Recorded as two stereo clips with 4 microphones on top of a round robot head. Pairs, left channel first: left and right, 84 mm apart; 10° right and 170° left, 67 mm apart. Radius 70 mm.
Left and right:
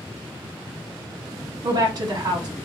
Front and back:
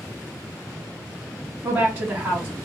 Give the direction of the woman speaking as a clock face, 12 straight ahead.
4 o'clock.